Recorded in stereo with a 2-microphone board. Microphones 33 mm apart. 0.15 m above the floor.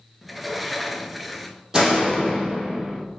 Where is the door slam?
15° right (ahead or behind), 3.5 m.